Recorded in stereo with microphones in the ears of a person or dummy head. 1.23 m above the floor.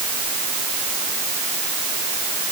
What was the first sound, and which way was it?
Only background noise.